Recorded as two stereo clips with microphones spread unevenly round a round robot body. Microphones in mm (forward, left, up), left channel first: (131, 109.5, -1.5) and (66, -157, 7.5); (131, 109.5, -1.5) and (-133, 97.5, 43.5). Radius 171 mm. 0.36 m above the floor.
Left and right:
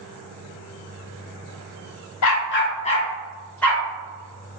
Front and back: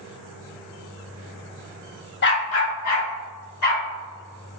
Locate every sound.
2.2 s a dog barking: 50° left, 0.8 m; by 3.8 s 10° right, 2 m